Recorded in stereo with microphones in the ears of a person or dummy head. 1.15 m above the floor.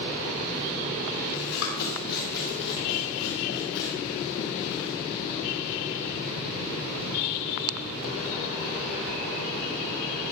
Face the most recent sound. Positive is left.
turn(degrees=75)  # may be behind; listen again after turning